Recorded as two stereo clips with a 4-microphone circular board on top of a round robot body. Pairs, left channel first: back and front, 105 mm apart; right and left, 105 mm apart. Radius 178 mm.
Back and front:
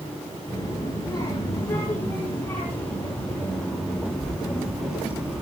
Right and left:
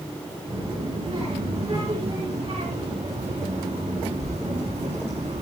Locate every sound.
0.5 s a child speaking: 125° left, 6.5 m; by 5.4 s 80° left, 5 m